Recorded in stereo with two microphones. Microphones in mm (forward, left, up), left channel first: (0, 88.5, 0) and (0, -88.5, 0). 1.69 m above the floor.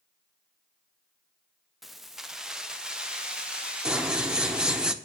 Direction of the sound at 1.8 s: Centre (ahead or behind).